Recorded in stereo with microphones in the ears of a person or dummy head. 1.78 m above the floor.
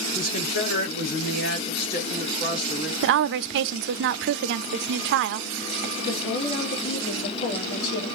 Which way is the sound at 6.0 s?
55° left (ahead or behind).